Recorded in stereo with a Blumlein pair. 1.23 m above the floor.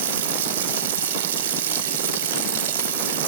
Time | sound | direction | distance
0.0 | running water | 60° right | 0.9 m